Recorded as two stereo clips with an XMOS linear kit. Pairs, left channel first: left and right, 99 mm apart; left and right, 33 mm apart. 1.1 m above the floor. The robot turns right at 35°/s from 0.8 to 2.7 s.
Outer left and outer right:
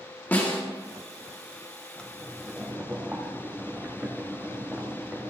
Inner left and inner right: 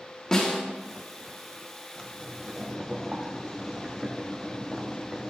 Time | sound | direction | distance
0.3 | a snare drum | 20° left (ahead or behind) | 2.0 m
2.0 | boiling | 10° left (ahead or behind) | 1.6 m